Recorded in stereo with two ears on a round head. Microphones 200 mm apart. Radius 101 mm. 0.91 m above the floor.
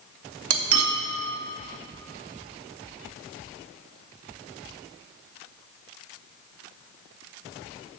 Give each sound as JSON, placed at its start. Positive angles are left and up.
{"t": 0.5, "sound": "cutlery clinking", "side_deg": -75, "distance_m": 0.8}